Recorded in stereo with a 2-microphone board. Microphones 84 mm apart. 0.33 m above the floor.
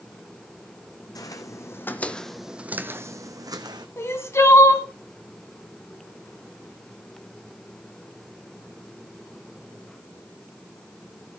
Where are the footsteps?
45° left (ahead or behind), 1.1 m; by 3.9 s 55° right (ahead or behind), 1.2 m.